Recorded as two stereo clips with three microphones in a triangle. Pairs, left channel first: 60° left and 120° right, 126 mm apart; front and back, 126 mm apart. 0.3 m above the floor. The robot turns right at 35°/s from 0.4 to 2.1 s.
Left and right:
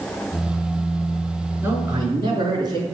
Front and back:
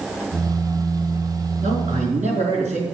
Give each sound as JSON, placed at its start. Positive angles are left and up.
{"t": 1.6, "sound": "a man speaking", "azimuth_deg": 170, "distance_m": 4.5}